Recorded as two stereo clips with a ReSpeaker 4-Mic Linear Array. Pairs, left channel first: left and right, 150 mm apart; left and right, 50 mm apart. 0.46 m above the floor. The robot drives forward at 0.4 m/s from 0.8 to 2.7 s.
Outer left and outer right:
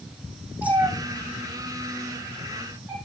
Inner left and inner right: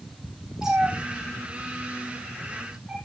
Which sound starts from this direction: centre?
A cat meowing, at 0.6 s.